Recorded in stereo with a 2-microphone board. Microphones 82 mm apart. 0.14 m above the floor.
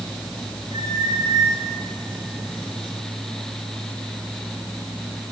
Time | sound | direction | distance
0.7 | a squeak | 85° right | 8.5 m